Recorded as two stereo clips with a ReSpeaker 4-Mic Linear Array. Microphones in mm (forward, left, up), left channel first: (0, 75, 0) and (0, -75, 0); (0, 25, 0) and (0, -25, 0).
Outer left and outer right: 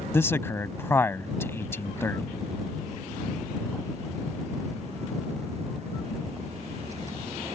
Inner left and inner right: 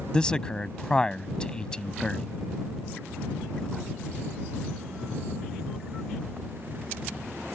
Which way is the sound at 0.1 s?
15° left (ahead or behind).